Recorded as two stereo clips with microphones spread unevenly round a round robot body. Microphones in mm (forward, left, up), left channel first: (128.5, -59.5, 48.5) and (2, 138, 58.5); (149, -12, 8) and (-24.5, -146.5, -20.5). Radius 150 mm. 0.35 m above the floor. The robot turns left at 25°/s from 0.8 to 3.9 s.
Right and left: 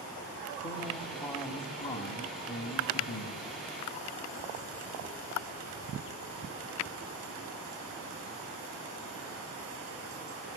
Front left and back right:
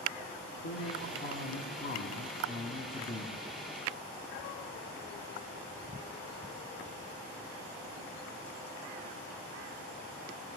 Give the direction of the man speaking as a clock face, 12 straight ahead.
11 o'clock.